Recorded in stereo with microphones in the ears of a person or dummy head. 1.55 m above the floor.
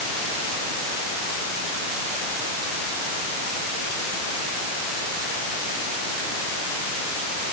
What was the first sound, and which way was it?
Only background noise.